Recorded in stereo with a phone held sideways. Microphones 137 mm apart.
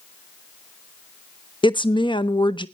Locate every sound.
1.6 s a woman speaking: 35° left (ahead or behind), 0.6 m